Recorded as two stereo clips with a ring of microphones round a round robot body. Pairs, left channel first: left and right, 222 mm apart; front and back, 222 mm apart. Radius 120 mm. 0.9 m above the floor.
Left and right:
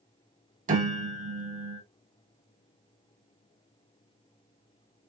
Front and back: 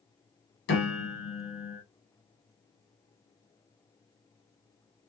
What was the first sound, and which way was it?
A piano, 40° right.